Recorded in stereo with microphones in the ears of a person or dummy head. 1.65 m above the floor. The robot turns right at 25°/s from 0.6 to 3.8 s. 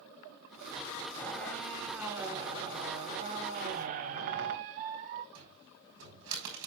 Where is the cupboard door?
70° right (ahead or behind), 4.5 m.